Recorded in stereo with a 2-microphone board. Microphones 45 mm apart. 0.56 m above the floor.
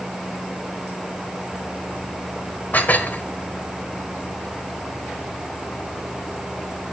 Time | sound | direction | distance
2.7 | dishes clattering | 40° left (ahead or behind) | 1.7 m